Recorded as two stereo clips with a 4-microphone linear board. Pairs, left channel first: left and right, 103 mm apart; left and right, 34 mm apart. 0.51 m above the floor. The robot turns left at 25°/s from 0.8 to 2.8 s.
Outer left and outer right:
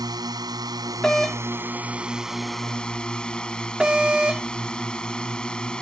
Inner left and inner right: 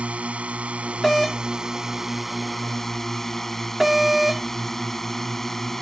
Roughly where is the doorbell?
Centre.